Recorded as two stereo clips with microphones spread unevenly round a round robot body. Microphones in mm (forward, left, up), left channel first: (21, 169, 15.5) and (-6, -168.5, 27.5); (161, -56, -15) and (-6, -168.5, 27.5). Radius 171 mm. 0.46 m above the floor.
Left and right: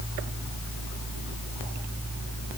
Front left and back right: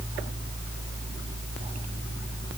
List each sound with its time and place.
Only background noise.